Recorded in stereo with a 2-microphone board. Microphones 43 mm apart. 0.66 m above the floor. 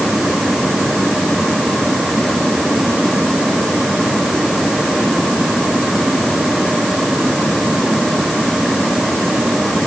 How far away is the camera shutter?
I don't hear a camera shutter.